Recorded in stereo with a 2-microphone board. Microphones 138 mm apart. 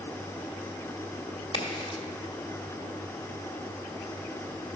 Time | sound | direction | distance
1.5 | a crack | 35° left (ahead or behind) | 1.6 m